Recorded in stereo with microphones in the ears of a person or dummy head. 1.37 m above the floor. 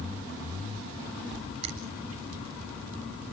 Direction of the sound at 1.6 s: 35° right (ahead or behind).